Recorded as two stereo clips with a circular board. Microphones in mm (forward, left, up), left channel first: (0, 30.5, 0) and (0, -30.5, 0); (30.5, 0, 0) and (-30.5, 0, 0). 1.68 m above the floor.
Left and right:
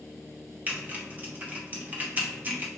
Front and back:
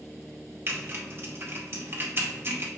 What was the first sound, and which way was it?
Typing on a keyboard, 145° right.